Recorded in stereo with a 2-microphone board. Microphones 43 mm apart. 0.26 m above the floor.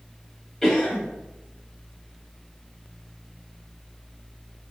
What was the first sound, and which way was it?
A cough, 10° left (ahead or behind).